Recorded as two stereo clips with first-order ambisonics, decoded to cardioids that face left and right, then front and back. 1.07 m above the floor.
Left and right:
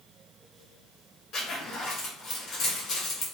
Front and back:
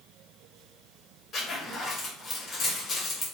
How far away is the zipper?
About 0.9 m.